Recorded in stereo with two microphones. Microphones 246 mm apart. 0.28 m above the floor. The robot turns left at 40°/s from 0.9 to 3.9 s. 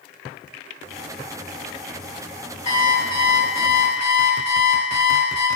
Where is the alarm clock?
135° left, 0.6 m; by 5.5 s 85° left, 0.6 m.